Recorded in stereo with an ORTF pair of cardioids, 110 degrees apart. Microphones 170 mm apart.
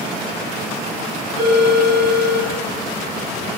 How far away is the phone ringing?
About 2.5 m.